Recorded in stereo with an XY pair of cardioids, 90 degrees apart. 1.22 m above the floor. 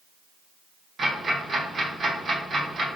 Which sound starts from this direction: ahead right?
Ticking, at 1.0 s.